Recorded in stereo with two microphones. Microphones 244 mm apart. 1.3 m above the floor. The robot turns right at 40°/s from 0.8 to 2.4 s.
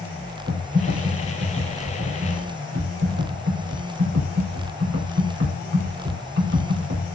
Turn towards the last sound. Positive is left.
turn(degrees=-75)